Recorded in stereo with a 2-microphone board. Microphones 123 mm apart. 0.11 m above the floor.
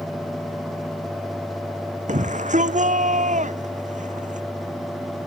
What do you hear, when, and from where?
2.1 s a shout: 80° right